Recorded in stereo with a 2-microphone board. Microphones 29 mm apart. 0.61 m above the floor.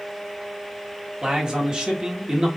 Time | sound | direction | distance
1.2 | a man speaking | 25° right (ahead or behind) | 1.2 m